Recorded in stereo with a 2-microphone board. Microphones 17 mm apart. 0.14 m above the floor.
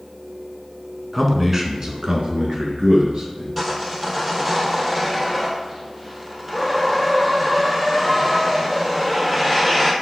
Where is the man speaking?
5° right (ahead or behind), 1.1 m; by 3.5 s 60° right (ahead or behind), 2.5 m.